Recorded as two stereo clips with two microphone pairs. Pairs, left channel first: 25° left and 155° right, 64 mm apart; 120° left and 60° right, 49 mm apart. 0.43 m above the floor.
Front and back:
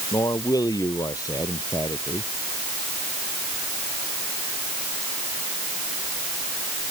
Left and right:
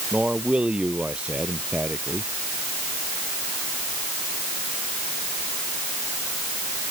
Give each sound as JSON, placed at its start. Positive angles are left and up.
{"t": 0.1, "sound": "a man speaking", "azimuth_deg": 5}